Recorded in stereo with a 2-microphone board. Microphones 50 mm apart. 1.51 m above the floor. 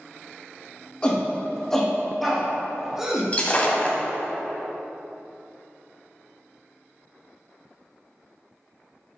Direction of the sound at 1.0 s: 20° left (ahead or behind).